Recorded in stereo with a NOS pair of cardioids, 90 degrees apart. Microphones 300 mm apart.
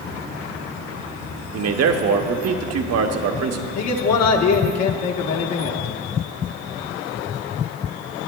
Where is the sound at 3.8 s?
60° left, 1.2 m.